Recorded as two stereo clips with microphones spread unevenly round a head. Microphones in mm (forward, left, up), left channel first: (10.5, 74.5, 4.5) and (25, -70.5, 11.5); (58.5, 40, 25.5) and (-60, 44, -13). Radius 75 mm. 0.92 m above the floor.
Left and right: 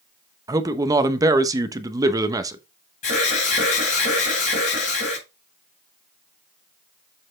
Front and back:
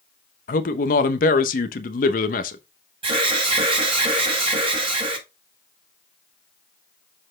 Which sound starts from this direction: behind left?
An alarm, at 3.0 s.